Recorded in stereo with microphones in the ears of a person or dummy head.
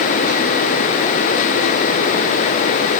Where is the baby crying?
I don't hear a baby crying.